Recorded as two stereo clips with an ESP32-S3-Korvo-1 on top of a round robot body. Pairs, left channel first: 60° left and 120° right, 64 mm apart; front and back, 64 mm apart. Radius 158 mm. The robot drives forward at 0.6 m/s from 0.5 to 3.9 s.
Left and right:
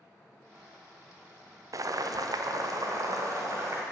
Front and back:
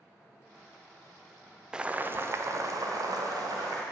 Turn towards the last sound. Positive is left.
turn(degrees=-160)